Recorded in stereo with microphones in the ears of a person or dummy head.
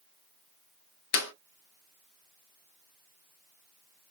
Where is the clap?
60° left (ahead or behind), 0.5 m.